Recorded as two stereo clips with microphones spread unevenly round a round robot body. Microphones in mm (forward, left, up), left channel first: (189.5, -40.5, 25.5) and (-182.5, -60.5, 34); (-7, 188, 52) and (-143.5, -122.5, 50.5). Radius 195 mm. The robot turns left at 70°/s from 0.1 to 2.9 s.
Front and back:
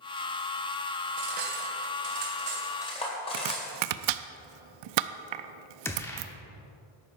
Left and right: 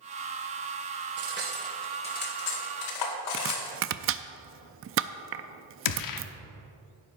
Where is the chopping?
165° right, 0.6 m.